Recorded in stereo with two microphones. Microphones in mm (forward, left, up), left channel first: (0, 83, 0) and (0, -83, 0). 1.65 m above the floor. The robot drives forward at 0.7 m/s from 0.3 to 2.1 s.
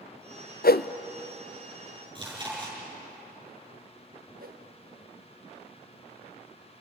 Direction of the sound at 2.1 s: 25° right (ahead or behind).